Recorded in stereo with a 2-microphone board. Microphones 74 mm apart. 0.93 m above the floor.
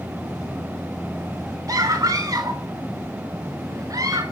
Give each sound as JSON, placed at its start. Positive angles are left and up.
{"t": 1.7, "sound": "a scream", "side_deg": -55, "distance_m": 3.0}